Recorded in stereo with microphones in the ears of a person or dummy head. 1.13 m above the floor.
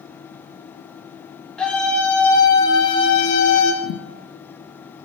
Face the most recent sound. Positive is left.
turn(degrees=60)  # may be behind; listen again after turning